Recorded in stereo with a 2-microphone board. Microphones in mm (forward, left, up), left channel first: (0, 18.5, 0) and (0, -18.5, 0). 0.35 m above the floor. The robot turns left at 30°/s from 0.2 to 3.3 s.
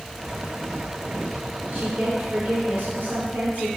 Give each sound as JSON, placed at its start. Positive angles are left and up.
{"t": 1.7, "sound": "a woman speaking", "azimuth_deg": -45, "distance_m": 4.5}